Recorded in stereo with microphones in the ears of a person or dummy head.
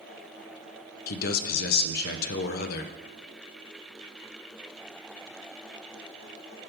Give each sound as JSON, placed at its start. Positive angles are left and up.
{"t": 1.1, "sound": "a man speaking", "side_deg": 55, "distance_m": 0.6}